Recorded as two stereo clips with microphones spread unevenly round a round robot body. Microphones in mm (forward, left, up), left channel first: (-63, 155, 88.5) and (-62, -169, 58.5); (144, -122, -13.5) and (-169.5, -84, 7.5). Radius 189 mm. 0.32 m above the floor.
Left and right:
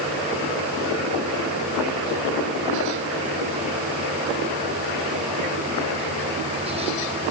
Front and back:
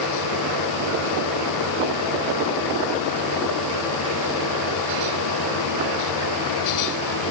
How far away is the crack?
I don't hear a crack.